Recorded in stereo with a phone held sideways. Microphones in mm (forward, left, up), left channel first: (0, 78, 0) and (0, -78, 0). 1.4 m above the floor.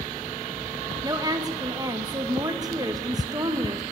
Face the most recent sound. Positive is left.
turn(degrees=-25)  # may be behind; listen again after turning